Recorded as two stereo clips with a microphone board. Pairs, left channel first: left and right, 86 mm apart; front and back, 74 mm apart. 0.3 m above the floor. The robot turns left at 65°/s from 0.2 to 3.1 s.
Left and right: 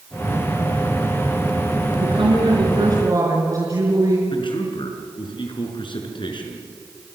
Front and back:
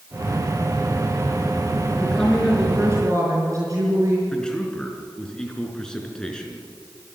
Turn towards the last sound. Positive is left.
turn(degrees=80)